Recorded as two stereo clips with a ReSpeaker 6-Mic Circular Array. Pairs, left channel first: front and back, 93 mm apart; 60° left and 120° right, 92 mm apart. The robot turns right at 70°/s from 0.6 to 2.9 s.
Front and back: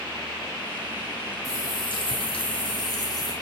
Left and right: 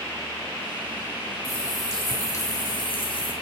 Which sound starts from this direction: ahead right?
A running tap, at 1.4 s.